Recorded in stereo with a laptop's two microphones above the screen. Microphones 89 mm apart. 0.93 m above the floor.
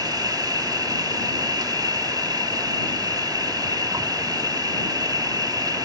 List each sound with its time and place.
0.0 s an insect: 45° right (ahead or behind)